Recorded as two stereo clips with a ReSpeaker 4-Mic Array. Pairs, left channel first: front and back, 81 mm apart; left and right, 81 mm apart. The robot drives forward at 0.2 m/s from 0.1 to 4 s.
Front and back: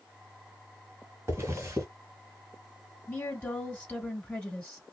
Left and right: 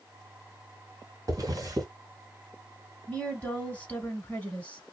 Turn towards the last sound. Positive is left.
turn(degrees=55)